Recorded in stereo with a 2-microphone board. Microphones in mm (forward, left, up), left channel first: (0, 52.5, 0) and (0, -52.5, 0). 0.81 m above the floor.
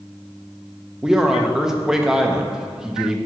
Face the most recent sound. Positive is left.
turn(degrees=-5)  # may be behind; listen again after turning